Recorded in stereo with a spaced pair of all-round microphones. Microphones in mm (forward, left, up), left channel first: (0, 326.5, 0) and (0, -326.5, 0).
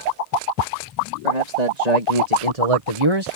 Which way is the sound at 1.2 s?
90° right.